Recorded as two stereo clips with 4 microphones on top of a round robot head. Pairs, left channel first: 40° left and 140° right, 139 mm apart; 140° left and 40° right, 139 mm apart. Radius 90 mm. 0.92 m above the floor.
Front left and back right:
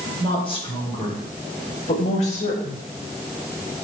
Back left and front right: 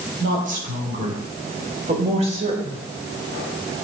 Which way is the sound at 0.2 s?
15° right.